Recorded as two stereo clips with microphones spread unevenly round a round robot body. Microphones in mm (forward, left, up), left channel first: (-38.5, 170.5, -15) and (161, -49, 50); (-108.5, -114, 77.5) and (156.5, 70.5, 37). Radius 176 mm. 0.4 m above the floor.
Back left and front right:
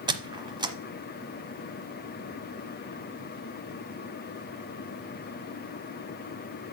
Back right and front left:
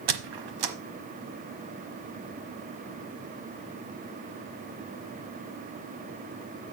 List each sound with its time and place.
0.1 s a squeak: 30° left, 1.1 m